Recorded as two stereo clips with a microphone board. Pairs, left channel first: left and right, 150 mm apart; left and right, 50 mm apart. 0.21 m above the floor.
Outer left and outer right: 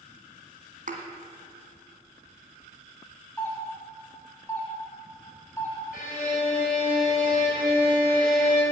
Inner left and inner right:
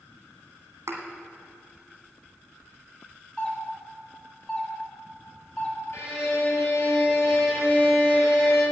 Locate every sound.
0.9 s a thud: 60° right (ahead or behind), 2 m
3.4 s a doorbell: 15° left (ahead or behind), 1.9 m
5.9 s a violin: 65° left (ahead or behind), 4.5 m